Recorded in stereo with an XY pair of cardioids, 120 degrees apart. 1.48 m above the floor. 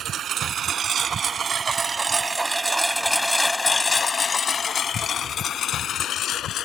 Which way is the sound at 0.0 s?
55° right.